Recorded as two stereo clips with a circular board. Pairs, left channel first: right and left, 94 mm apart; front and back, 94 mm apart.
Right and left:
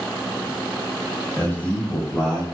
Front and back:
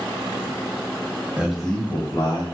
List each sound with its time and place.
1.4 s a man speaking: 125° right, 1.2 m; by 2.4 s 10° right, 1.6 m